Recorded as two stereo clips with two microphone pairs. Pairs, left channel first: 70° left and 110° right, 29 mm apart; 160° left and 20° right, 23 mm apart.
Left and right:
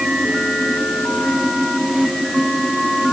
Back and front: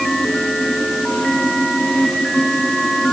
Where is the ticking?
No ticking in this recording.